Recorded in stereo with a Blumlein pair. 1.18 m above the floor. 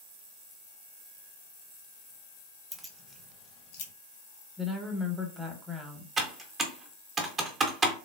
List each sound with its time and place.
2.7 s keys jangling: 10° right, 0.5 m; by 3.9 s 55° left, 0.7 m
4.6 s a woman speaking: 5° right, 0.8 m
6.2 s typing on a keyboard: 20° right, 0.6 m